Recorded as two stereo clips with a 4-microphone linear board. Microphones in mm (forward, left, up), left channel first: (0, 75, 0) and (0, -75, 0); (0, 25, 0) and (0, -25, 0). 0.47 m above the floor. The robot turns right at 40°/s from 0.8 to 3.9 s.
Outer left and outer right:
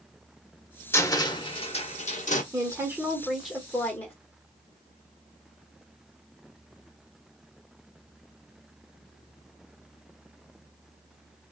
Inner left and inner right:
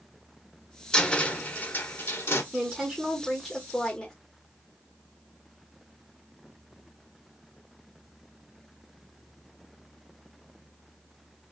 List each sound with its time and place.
0.9 s a cupboard door: 20° left, 0.6 m; by 2.4 s 80° left, 0.6 m
2.5 s a woman speaking: 35° right, 1.0 m; by 4.1 s 20° left, 1.0 m